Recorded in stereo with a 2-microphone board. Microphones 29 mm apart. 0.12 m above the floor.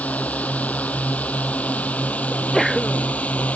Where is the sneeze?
15° left (ahead or behind).